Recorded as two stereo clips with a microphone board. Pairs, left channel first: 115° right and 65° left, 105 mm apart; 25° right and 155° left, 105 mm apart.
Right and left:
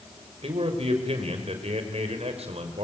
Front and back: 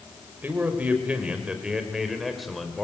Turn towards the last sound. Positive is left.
turn(degrees=65)